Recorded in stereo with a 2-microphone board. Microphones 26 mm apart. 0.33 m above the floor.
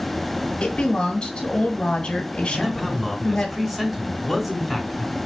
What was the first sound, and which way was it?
A woman speaking, 35° left (ahead or behind).